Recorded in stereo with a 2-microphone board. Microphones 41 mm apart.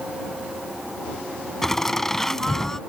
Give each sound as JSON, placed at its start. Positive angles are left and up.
{"t": 1.6, "sound": "laughter", "side_deg": 10}